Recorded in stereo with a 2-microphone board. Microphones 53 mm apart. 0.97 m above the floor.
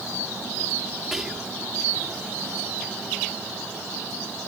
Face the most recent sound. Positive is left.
turn(degrees=-5)  # may be behind; listen again after turning